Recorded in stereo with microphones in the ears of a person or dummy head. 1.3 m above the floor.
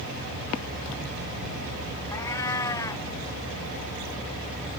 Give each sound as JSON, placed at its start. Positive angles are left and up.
{"t": 2.1, "sound": "a cat meowing", "side_deg": 15}